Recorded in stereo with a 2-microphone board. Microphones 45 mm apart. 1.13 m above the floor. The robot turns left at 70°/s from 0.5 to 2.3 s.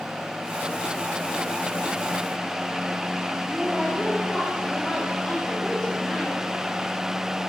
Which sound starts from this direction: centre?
A woman speaking, at 3.5 s.